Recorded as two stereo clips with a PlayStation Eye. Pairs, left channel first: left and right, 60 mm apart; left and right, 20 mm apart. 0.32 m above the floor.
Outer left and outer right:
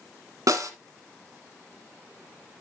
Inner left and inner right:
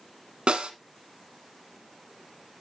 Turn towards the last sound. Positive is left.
turn(degrees=-70)  # may be behind; listen again after turning